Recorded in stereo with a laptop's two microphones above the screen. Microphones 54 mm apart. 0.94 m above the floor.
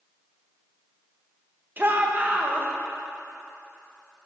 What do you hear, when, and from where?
1.8 s a shout: 40° right (ahead or behind), 1.0 m